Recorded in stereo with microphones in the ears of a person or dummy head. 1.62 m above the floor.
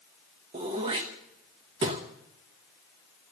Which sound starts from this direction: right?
Throat clearing, at 0.5 s.